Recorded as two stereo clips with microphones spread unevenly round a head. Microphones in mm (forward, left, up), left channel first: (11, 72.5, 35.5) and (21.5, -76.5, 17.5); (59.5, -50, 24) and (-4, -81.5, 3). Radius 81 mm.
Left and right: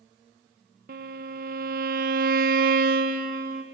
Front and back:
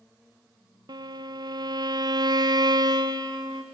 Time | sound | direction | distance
0.9 | a violin | 125° right | 0.8 m